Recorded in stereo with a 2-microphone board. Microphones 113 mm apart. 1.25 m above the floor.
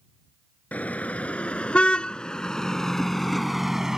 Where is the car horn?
15° left (ahead or behind); by 4.0 s 5° right (ahead or behind).